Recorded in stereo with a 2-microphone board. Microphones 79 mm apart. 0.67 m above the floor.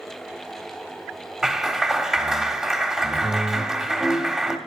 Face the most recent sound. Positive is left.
turn(degrees=-10)  # may be behind; listen again after turning